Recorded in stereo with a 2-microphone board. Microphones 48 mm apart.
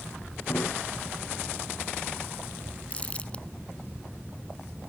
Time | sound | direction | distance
0.5 | a snare drum | 55° left (ahead or behind) | ?
2.9 | crumpling | 25° left (ahead or behind) | ?